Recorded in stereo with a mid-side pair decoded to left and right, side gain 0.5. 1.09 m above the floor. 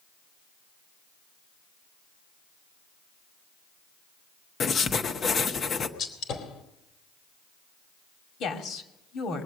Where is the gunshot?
65° left, 2.5 m.